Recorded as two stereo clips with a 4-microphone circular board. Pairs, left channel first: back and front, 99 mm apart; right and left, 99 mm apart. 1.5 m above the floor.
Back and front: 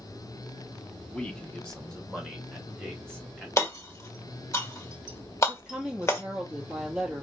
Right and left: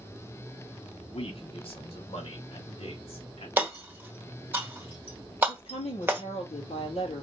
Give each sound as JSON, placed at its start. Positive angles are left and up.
{"t": 1.1, "sound": "a man speaking", "azimuth_deg": -100, "distance_m": 1.0}
{"t": 3.6, "sound": "hammering", "azimuth_deg": 145, "distance_m": 1.5}
{"t": 5.5, "sound": "a woman speaking", "azimuth_deg": -90, "distance_m": 3.5}